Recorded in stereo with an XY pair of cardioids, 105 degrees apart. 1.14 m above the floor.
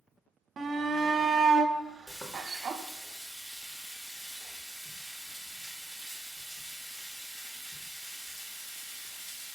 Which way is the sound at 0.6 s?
45° right.